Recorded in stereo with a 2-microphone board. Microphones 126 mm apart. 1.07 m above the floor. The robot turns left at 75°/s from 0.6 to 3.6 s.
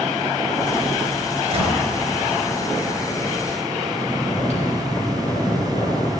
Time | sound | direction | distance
1.5 | a gunshot | 55° right (ahead or behind) | 3 m
3.9 | snoring | 55° left (ahead or behind) | 3.5 m